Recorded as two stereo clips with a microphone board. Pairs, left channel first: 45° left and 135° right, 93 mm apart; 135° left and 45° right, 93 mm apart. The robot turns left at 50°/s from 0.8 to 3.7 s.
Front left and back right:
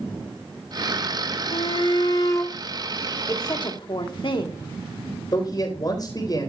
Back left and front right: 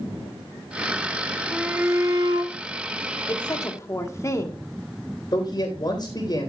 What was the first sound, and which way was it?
A shout, 35° left.